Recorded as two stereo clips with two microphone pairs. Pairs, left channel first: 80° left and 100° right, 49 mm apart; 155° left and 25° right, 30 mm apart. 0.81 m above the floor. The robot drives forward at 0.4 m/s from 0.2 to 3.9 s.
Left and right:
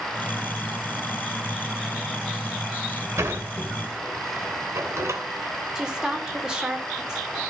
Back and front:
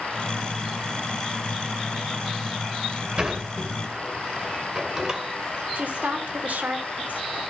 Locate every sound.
3.2 s a sliding door: 85° right, 2.5 m; by 5.2 s 90° right, 2.5 m
5.8 s a woman speaking: 25° right, 3 m